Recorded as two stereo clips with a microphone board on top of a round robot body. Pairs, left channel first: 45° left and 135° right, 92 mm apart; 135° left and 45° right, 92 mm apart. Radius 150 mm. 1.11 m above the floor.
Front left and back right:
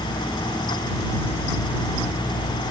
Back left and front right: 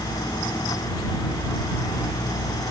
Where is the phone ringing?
No phone ringing in this recording.